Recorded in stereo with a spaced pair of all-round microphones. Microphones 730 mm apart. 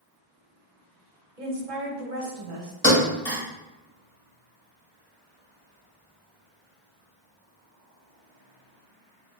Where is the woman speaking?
85° right, 0.9 m.